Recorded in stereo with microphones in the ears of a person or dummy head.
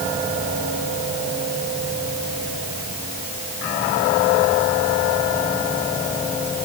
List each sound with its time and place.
Only background noise.